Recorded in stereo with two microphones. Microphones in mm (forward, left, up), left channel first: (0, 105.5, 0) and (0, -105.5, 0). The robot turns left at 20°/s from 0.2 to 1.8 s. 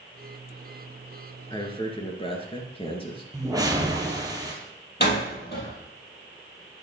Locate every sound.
1.5 s a man speaking: 20° left (ahead or behind), 1.8 m; by 3.2 s 25° left (ahead or behind), 1.8 m
3.3 s a whoosh: 15° right (ahead or behind), 1.6 m
5.0 s a door slam: 50° left (ahead or behind), 3 m